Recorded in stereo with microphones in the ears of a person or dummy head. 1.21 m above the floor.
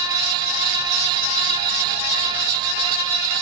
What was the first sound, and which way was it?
Only background noise.